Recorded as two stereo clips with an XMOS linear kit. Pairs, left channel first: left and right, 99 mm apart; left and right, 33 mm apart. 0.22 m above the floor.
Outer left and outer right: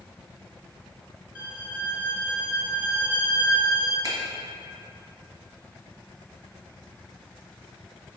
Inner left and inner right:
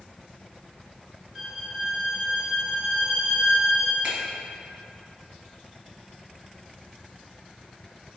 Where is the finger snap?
40° right (ahead or behind), 1.8 m.